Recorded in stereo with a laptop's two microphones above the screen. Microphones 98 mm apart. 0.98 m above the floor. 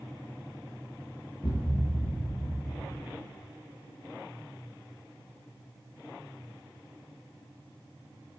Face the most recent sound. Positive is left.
turn(degrees=35)  # may be behind; listen again after turning